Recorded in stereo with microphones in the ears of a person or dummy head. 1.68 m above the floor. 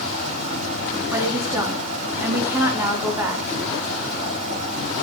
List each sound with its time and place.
0.0 s running water: 40° right (ahead or behind), 7.5 m
1.1 s a woman speaking: 10° right (ahead or behind), 3.5 m